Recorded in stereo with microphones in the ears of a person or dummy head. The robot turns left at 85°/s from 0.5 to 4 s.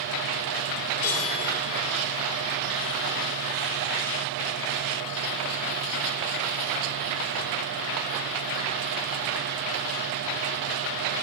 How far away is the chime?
About 6 m.